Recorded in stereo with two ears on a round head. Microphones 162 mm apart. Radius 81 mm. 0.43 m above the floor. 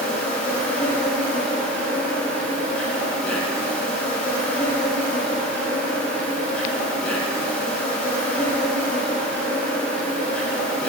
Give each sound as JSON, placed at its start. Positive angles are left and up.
{"t": 0.0, "sound": "an insect", "side_deg": 5, "distance_m": 2.5}